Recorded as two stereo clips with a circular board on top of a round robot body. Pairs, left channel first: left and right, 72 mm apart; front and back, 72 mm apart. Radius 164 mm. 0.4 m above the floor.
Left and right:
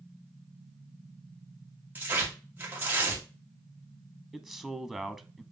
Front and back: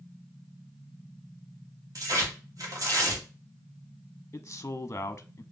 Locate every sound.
1.9 s tearing paper: 155° right, 2.5 m
4.3 s a man speaking: 5° left, 1.0 m